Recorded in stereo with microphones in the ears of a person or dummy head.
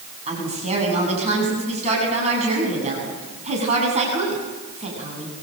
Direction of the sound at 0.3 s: 30° right (ahead or behind).